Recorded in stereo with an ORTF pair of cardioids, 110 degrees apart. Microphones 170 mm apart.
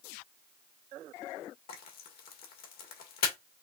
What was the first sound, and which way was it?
Frying, 70° left.